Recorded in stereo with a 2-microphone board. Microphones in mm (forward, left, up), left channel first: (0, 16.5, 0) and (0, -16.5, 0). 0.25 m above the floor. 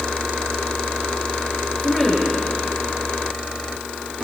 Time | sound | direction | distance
1.8 | a woman speaking | 5° right (ahead or behind) | 4.5 m